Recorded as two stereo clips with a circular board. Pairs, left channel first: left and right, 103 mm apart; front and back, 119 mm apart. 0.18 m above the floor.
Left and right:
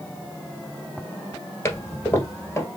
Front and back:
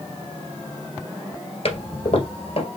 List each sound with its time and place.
1.6 s a toilet flushing: 30° left, 1.8 m